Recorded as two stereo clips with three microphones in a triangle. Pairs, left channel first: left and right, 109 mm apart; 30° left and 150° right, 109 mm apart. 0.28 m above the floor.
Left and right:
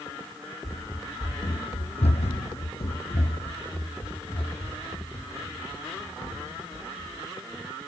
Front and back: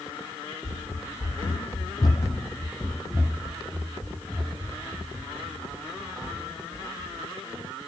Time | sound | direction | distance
0.6 | running footsteps | 25° left | 1.1 m